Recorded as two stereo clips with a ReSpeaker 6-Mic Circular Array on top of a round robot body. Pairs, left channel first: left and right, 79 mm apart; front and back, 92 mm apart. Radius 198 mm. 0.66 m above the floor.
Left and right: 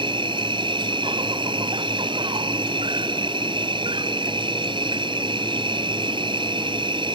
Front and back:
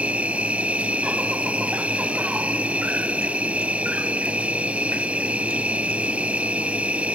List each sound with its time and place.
0.0 s an insect: 105° right